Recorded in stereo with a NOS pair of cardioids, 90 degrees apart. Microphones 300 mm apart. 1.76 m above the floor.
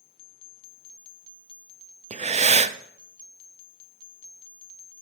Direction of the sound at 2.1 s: 25° right.